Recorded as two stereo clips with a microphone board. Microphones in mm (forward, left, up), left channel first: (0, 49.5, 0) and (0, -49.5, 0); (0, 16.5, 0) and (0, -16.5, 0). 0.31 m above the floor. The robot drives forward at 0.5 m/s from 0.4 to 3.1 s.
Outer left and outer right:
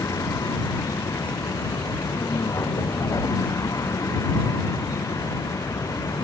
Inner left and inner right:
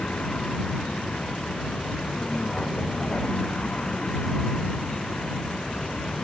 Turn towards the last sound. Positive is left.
turn(degrees=35)  # may be behind; listen again after turning